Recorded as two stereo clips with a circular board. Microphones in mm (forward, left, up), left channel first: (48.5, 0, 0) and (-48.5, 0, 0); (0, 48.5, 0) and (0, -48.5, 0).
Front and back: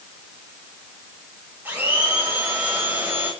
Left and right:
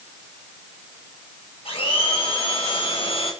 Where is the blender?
110° left, 9.5 m.